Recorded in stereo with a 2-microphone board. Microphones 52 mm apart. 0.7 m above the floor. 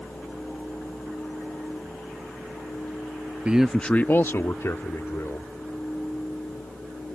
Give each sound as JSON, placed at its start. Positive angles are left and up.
{"t": 3.5, "sound": "a man speaking", "side_deg": -25}